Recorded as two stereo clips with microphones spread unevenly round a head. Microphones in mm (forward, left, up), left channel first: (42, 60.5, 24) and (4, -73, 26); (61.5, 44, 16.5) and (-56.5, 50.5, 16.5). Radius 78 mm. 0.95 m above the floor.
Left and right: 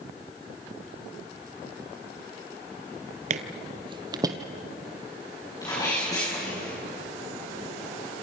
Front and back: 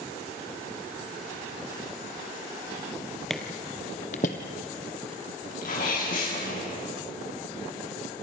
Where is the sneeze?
10° left, 7 m.